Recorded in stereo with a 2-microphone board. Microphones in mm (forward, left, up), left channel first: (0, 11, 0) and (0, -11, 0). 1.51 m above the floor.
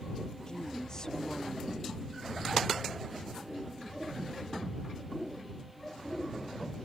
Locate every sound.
0.5 s a woman speaking: 30° left (ahead or behind)